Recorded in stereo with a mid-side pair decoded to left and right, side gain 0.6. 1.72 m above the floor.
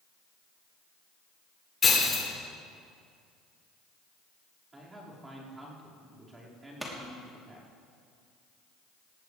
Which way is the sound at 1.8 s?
30° left.